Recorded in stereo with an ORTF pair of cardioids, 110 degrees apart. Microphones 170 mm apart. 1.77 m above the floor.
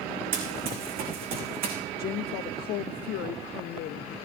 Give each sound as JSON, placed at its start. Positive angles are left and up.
{"t": 0.3, "sound": "running footsteps", "azimuth_deg": -60, "distance_m": 6.0}
{"t": 2.0, "sound": "a woman speaking", "azimuth_deg": 65, "distance_m": 0.6}